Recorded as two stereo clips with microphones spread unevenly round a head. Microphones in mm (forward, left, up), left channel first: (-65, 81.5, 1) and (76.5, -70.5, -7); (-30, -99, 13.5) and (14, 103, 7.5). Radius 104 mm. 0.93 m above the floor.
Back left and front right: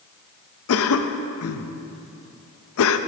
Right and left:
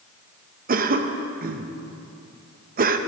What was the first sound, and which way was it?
A cough, 125° left.